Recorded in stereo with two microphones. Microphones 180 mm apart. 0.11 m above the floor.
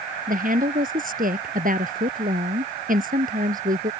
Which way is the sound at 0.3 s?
50° right (ahead or behind).